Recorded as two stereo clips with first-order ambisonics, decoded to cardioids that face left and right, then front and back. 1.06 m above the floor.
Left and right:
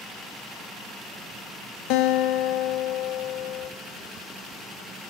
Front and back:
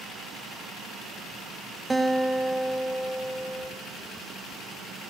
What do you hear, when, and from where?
1.9 s a guitar: 95° left, 0.7 m